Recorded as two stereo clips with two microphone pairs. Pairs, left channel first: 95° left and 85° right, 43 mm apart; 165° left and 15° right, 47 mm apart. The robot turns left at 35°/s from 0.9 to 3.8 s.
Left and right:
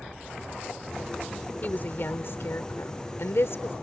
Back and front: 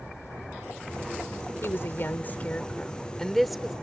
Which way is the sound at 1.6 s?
145° left.